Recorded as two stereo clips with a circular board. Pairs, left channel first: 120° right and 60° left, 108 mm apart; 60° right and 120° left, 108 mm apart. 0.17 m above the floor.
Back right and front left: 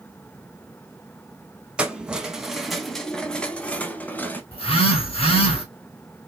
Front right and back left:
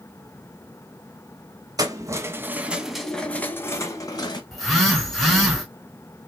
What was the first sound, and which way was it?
Keys jangling, 135° left.